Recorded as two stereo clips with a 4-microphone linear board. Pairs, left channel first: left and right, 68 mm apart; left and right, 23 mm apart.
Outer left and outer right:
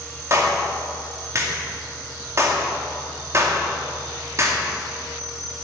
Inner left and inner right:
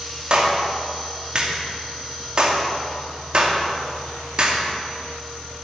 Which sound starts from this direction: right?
A clap, at 0.3 s.